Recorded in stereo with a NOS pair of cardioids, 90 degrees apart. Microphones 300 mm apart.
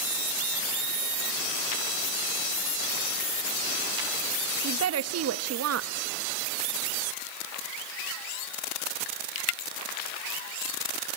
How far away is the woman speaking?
About 1.6 m.